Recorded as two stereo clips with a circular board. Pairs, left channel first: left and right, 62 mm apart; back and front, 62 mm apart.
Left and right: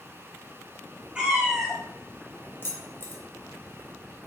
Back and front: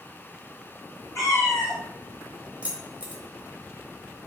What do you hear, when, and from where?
1.1 s a cat meowing: 165° right, 1.2 m
2.6 s keys jangling: 60° left, 0.7 m